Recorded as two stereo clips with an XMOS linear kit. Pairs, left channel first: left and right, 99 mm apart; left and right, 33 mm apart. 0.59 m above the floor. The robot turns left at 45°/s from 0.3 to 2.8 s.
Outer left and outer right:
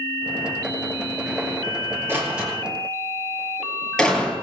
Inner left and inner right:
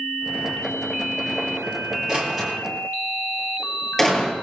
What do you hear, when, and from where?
2.1 s a door slam: 25° right (ahead or behind), 8.5 m; by 4.3 s 5° left (ahead or behind), 8.5 m